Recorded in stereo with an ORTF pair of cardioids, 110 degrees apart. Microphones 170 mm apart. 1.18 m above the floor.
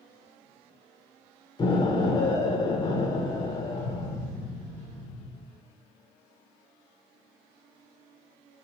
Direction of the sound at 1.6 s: 25° left.